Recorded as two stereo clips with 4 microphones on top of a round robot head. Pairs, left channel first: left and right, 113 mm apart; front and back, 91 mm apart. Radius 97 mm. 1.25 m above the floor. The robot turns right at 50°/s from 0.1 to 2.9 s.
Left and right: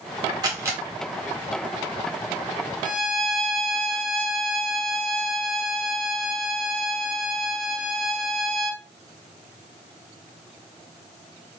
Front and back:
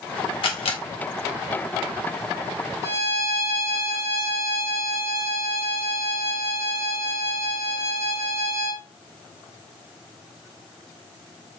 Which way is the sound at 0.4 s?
30° right.